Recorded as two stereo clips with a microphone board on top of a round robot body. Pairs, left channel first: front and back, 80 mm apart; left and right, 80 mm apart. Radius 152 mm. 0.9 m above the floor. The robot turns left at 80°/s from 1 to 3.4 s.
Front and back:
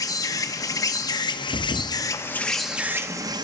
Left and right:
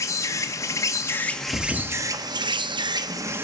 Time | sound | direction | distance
0.0 | an insect | 40° left | 1.0 m
1.5 | a thud | 40° left | 0.7 m